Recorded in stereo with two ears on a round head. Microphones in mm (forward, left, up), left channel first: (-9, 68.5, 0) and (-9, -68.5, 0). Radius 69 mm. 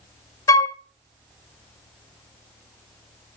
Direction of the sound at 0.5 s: 20° left (ahead or behind).